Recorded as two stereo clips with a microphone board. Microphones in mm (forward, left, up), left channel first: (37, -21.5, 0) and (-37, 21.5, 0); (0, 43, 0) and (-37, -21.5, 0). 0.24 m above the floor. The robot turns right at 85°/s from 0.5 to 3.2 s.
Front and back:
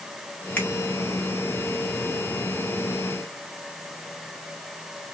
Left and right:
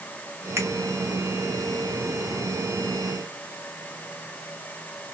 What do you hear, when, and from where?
0.6 s a finger snap: 95° right, 1.4 m; by 0.7 s 85° right, 1.4 m